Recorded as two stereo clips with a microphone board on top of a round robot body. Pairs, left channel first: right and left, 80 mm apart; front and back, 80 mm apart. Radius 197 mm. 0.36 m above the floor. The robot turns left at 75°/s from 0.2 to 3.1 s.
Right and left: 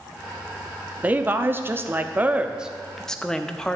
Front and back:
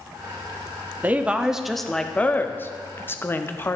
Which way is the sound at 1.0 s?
140° left.